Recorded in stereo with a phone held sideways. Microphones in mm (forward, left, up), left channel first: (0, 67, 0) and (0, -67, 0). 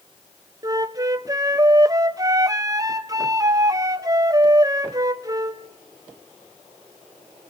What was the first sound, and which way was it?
A flute, 25° right (ahead or behind).